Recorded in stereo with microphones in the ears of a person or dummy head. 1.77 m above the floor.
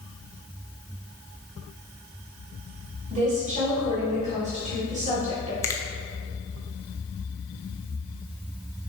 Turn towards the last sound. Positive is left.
turn(degrees=15)  # may be behind; listen again after turning